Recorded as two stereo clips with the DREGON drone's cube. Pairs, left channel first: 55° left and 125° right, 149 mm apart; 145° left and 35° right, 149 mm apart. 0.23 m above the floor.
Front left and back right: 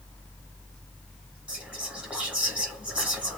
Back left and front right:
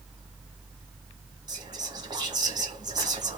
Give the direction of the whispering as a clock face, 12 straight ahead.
2 o'clock.